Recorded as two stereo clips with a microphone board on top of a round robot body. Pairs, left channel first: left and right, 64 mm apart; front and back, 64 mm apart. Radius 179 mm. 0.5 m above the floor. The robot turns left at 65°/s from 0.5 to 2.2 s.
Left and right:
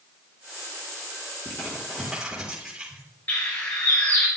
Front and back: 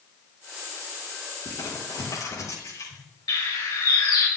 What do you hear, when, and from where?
1.4 s crumpling: 35° left, 4 m; by 3.0 s 10° right, 4 m
3.3 s a bird: 30° left, 3 m